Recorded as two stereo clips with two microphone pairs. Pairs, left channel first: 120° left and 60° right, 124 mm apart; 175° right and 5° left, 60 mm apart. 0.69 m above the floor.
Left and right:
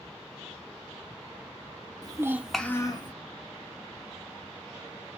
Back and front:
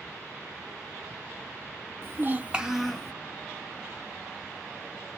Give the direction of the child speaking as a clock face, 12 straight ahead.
1 o'clock.